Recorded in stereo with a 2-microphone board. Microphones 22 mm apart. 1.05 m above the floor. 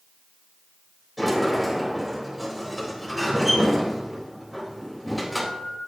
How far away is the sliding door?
About 4 m.